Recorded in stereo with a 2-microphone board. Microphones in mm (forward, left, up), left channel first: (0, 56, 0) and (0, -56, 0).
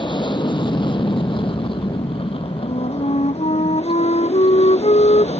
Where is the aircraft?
40° left (ahead or behind); by 5.4 s 65° left (ahead or behind).